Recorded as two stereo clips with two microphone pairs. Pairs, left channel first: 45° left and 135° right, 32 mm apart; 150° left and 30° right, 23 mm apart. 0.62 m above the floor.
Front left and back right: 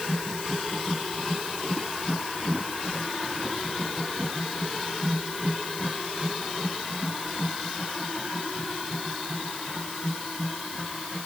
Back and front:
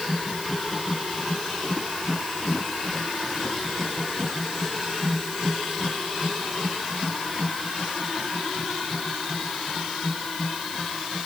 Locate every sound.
Only background noise.